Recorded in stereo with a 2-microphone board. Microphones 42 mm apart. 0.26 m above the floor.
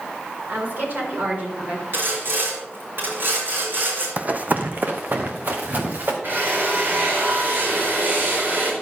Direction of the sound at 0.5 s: 50° right (ahead or behind).